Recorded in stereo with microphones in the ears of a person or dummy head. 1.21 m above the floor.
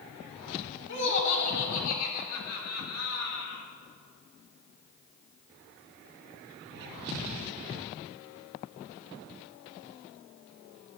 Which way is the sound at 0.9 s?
60° left (ahead or behind).